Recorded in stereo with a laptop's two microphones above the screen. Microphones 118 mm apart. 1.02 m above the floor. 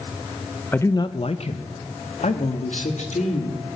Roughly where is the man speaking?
Centre.